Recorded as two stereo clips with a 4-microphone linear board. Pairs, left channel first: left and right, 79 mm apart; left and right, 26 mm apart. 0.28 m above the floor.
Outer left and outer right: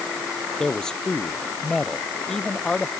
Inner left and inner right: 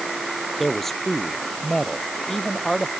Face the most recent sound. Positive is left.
turn(degrees=10)  # may be behind; listen again after turning